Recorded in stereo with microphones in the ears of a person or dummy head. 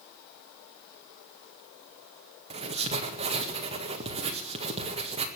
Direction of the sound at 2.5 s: 30° right (ahead or behind).